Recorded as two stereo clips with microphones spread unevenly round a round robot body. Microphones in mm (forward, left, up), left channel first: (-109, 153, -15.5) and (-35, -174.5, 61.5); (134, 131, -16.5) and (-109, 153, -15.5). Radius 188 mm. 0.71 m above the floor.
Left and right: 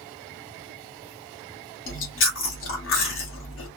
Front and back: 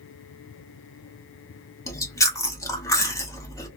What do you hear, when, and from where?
1.9 s chewing: 70° left, 1.1 m